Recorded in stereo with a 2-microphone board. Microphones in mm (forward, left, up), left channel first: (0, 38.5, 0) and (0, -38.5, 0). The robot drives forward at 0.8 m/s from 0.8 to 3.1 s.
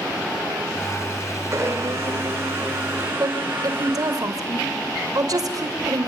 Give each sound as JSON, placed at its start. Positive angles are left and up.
{"t": 1.5, "sound": "a blender", "side_deg": -35, "distance_m": 4.5}
{"t": 3.2, "sound": "a woman speaking", "side_deg": -60, "distance_m": 2.5}